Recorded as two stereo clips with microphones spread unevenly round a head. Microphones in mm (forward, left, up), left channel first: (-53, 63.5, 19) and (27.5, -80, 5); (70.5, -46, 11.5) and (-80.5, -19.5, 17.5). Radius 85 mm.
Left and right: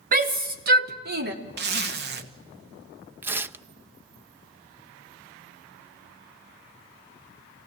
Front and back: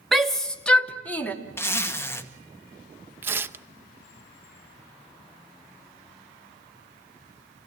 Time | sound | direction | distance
0.1 | a shout | 100° right | 3 m
1.6 | a zipper | 85° right | 2 m
3.2 | tearing paper | 135° right | 0.6 m